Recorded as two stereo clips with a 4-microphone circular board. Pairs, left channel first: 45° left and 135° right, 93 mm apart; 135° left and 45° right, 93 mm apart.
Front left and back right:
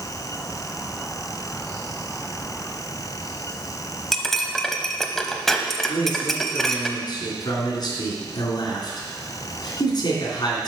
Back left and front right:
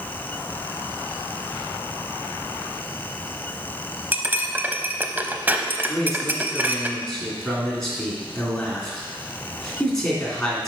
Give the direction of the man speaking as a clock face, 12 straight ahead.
10 o'clock.